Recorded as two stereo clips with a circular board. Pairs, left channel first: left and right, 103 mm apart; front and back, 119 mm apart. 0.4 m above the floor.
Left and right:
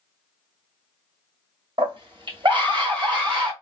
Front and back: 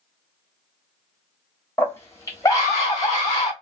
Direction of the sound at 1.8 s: 70° right.